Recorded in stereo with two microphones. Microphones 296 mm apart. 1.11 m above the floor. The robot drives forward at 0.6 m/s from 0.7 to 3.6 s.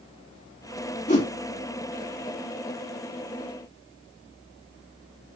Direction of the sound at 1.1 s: 20° left (ahead or behind).